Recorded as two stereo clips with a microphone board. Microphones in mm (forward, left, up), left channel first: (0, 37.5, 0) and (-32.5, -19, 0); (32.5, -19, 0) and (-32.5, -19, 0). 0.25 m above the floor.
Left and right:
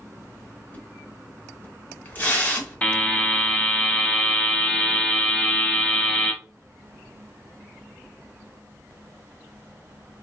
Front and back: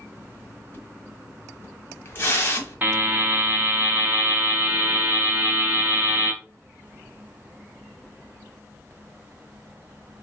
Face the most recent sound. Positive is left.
turn(degrees=125)